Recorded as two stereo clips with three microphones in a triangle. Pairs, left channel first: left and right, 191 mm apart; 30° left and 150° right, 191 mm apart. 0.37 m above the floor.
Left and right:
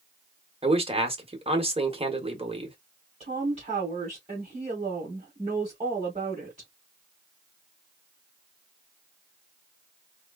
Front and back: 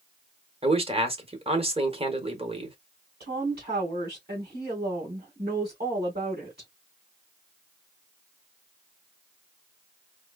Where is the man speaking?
120° right, 1.2 m.